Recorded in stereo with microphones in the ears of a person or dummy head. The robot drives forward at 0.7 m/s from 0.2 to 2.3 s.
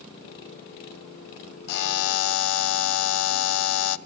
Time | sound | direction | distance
1.7 | a buzzer | 50° left (ahead or behind) | 0.7 m